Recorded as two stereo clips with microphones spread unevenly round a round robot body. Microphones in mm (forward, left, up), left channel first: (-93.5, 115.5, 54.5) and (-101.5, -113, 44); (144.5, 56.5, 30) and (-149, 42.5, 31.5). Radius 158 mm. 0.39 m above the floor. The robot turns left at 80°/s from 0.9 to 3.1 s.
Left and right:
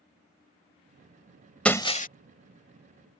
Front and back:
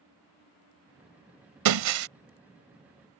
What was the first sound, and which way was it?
Breaking glass, 175° left.